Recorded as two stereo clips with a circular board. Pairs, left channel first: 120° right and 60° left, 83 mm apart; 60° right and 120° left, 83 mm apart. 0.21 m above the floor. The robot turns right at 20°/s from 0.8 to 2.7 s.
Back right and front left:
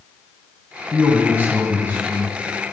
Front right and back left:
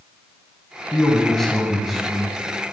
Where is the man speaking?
10° left, 1.1 m; by 2.4 s 40° left, 1.1 m.